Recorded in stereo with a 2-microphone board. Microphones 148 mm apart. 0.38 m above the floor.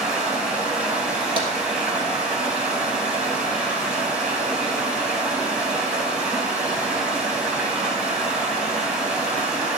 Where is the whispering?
No whispering in this recording.